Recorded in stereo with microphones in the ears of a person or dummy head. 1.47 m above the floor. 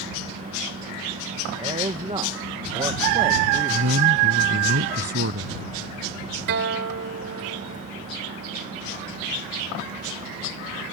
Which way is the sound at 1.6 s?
25° right (ahead or behind).